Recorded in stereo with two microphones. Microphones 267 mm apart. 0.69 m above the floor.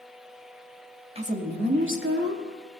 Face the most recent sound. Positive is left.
turn(degrees=-65)  # may be behind; listen again after turning